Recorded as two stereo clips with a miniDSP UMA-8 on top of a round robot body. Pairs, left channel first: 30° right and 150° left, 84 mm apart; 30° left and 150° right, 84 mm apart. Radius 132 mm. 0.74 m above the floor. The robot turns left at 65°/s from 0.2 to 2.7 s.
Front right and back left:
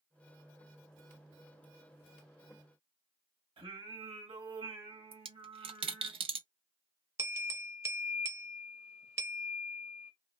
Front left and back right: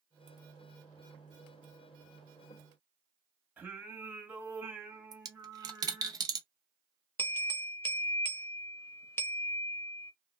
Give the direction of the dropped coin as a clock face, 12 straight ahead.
7 o'clock.